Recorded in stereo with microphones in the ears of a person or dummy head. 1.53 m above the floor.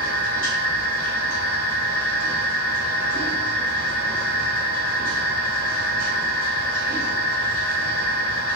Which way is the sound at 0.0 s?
50° left (ahead or behind).